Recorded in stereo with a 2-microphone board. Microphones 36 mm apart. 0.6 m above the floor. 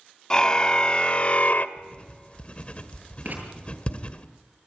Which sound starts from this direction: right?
Writing, at 3.2 s.